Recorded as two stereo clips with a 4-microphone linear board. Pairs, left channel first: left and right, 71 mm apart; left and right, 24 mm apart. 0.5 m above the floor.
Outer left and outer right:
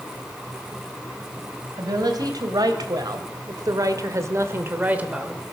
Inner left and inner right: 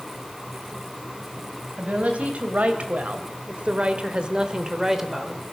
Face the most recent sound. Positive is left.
turn(degrees=-10)  # may be behind; listen again after turning